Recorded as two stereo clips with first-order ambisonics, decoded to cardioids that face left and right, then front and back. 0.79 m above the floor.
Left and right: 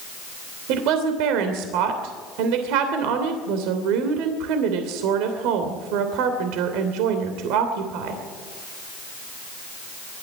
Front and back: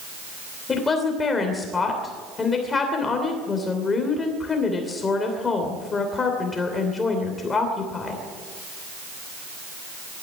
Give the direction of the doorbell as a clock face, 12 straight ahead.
No doorbell in this recording.